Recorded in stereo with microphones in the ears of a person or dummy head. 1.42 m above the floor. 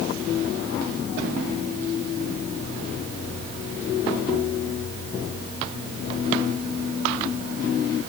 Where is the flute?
No flute in this recording.